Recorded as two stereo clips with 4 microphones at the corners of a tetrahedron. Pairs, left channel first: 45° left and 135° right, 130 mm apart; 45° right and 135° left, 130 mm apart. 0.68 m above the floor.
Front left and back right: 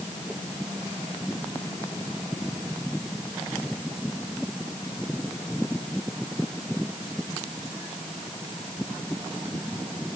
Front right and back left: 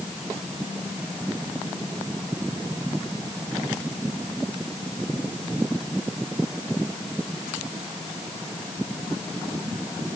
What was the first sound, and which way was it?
Only background noise.